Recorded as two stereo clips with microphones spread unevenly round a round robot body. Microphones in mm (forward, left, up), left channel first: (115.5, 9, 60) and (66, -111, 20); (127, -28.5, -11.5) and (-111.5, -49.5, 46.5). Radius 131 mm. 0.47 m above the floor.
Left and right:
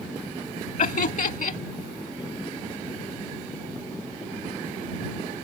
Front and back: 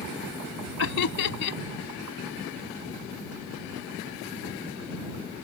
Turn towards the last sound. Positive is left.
turn(degrees=45)